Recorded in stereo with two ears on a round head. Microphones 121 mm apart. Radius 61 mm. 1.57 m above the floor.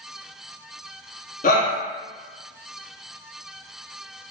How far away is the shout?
About 1.1 m.